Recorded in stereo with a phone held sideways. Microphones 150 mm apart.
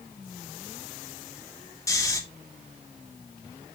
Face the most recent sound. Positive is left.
turn(degrees=20)  # may be behind; listen again after turning